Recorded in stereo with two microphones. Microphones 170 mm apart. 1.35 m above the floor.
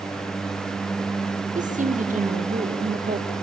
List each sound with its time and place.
1.6 s a woman speaking: 50° right (ahead or behind), 1.6 m